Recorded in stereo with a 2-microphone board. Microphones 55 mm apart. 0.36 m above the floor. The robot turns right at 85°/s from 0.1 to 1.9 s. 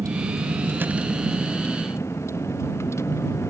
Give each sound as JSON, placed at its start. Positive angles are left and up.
{"t": 0.0, "sound": "a vehicle", "azimuth_deg": -95}